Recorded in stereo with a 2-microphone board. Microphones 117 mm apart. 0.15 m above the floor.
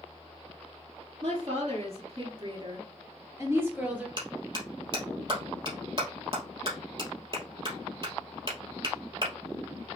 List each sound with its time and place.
1.2 s a woman speaking: 65° right (ahead or behind), 2.5 m; by 4.1 s 10° right (ahead or behind), 2.5 m
4.2 s a clap: 40° right (ahead or behind), 2.5 m